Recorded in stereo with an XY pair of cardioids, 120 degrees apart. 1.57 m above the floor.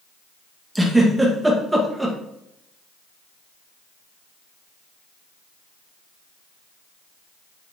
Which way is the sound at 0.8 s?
10° right.